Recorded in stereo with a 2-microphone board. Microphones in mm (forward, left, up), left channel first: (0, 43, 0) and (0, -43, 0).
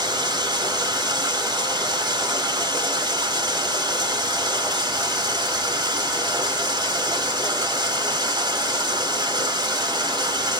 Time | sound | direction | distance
0.0 | running water | 55° right (ahead or behind) | 1.4 m